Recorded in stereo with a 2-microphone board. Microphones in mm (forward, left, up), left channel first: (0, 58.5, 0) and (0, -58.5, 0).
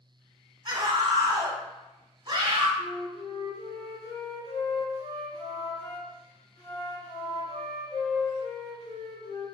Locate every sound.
0.7 s a scream: 40° right (ahead or behind), 1.4 m
2.8 s a flute: 65° left (ahead or behind), 2 m